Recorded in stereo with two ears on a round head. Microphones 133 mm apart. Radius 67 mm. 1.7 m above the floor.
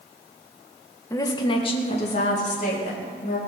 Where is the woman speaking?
20° left (ahead or behind), 1.6 m; by 3.4 s 60° left (ahead or behind), 4 m.